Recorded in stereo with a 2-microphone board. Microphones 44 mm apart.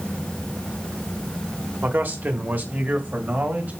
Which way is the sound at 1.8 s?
45° right (ahead or behind).